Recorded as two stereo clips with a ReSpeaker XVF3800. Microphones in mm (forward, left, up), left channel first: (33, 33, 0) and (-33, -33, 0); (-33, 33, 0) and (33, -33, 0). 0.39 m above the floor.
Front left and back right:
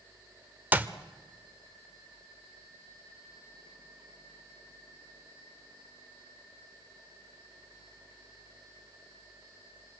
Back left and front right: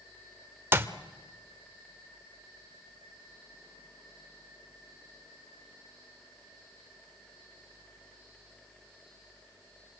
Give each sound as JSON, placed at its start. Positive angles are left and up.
{"t": 0.7, "sound": "a clap", "azimuth_deg": -85, "distance_m": 1.0}